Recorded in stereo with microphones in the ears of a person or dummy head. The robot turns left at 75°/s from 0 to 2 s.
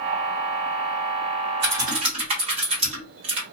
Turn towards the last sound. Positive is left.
turn(degrees=-45)  # may be behind; listen again after turning